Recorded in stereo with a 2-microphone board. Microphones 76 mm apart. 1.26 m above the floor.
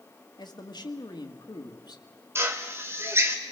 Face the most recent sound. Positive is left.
turn(degrees=-35)  # may be behind; listen again after turning